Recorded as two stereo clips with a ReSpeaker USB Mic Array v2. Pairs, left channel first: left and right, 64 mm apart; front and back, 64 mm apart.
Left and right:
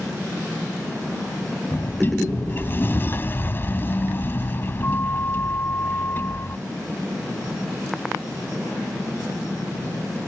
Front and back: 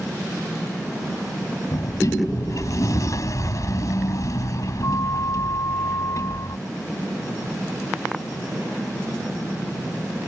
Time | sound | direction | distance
1.7 | a sliding door | 35° left | ?